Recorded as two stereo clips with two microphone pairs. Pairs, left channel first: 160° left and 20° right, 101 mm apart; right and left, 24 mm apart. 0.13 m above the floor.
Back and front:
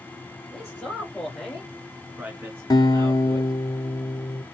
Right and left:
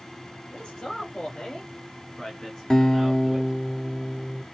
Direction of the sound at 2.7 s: 155° right.